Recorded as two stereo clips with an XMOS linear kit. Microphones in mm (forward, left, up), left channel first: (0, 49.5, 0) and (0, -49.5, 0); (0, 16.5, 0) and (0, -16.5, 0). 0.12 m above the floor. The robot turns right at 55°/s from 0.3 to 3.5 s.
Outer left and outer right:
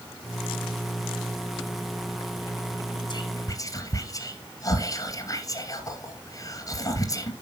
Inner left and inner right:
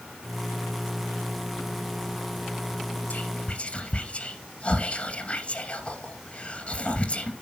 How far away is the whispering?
About 2 m.